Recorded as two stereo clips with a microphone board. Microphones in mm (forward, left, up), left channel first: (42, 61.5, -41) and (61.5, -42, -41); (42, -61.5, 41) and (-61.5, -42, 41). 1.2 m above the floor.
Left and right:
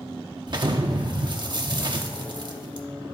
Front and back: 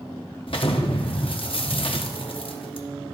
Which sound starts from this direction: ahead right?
An explosion, at 0.5 s.